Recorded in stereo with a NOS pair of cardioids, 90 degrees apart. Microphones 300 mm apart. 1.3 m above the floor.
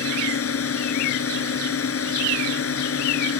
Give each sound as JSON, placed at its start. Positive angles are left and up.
{"t": 0.0, "sound": "a drone", "azimuth_deg": 50}